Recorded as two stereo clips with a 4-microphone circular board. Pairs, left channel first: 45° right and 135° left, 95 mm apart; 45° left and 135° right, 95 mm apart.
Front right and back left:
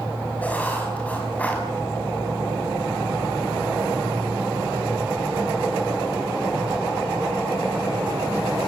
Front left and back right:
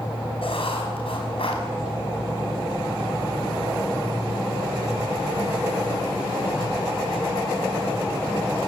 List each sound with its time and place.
0.4 s writing: 30° left, 5.5 m